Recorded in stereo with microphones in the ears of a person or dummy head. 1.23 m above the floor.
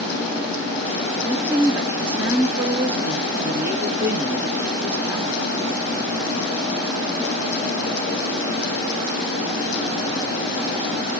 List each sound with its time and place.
1.3 s a woman speaking: 10° right (ahead or behind), 0.7 m